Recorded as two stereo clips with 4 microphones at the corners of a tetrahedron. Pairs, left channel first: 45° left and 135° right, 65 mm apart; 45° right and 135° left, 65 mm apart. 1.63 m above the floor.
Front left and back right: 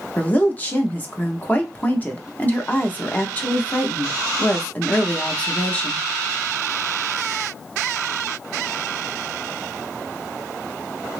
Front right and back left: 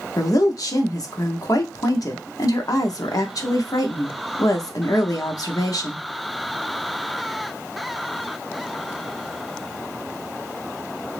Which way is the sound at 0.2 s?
20° right.